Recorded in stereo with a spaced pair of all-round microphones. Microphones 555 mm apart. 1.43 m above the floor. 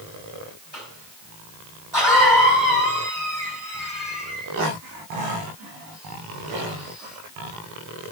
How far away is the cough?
About 4.5 m.